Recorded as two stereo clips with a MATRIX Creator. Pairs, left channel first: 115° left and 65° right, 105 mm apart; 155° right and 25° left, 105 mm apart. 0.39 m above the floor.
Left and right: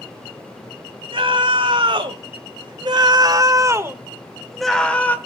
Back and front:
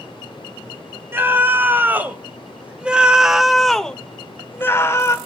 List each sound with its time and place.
1.1 s a scream: 45° right, 2.5 m; by 5.2 s 170° left, 1.1 m